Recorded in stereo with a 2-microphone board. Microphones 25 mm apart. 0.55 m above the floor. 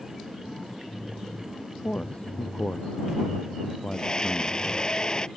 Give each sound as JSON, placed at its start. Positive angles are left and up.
{"t": 1.8, "sound": "a man speaking", "side_deg": 55}
{"t": 3.9, "sound": "a scream", "side_deg": 35}